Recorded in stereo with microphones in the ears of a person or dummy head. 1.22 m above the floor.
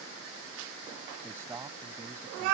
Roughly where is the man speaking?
Centre.